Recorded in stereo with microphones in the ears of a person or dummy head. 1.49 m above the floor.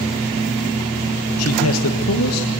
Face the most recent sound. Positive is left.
turn(degrees=80)